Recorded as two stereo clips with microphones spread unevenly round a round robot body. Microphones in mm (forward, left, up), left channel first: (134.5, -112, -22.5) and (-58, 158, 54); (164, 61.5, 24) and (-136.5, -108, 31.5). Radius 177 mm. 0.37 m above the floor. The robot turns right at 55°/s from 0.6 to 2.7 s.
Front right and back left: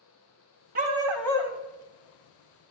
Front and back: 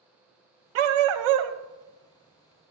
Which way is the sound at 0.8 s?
165° right.